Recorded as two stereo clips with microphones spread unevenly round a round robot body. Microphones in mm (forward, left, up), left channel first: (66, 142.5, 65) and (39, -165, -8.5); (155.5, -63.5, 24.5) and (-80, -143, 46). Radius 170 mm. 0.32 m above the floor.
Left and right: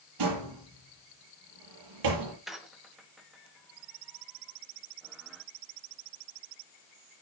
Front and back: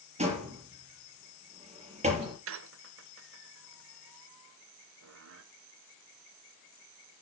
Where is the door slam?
100° right, 5.5 m.